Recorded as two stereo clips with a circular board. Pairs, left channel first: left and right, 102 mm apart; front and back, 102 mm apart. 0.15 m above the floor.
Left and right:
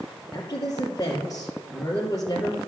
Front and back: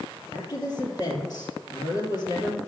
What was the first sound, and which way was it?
A woman speaking, 40° left.